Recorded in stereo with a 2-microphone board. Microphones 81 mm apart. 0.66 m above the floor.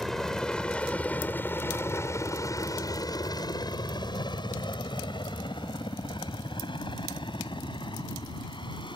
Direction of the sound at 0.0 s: 5° left (ahead or behind).